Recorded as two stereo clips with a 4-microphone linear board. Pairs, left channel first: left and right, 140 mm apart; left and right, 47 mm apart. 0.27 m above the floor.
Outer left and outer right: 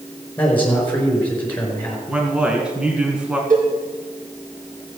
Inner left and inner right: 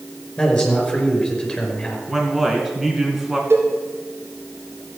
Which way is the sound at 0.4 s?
10° left (ahead or behind).